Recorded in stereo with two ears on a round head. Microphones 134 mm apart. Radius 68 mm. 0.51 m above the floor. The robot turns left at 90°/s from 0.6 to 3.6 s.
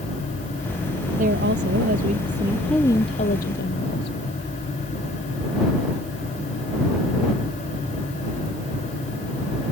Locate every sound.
1.2 s a woman speaking: 50° right; by 4.2 s 95° left